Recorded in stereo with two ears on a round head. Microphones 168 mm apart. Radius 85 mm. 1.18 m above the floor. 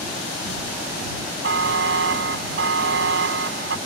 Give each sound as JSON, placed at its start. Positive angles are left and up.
{"t": 1.4, "sound": "a buzzer", "side_deg": -75}